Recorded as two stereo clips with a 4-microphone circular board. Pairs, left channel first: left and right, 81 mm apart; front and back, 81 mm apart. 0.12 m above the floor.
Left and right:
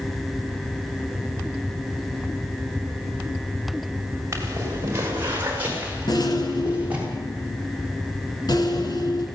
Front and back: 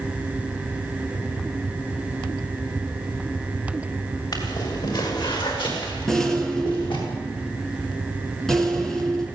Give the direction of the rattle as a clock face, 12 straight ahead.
9 o'clock.